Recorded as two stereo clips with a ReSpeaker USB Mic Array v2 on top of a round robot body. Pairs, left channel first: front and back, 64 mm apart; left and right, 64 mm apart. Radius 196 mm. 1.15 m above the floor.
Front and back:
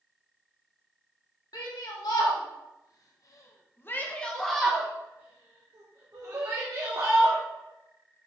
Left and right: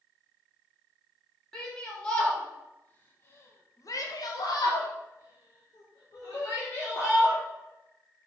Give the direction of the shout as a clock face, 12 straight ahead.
12 o'clock.